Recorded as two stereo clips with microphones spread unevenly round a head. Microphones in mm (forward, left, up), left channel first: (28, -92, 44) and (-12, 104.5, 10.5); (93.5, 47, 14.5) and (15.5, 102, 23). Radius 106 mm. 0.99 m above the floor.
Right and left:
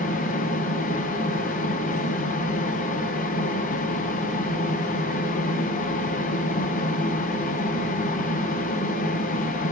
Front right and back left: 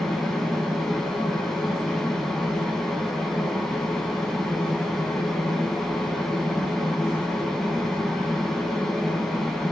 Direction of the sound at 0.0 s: 110° right.